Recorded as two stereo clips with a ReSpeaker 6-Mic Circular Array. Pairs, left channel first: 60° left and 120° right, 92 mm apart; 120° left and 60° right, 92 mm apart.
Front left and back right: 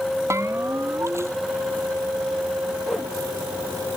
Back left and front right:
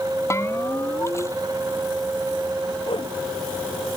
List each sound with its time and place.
0.3 s a bell: straight behind
2.9 s a whoosh: 145° left